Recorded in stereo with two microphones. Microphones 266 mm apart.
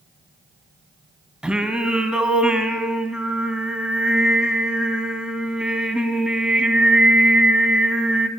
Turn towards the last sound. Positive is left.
turn(degrees=-5)  # may be behind; listen again after turning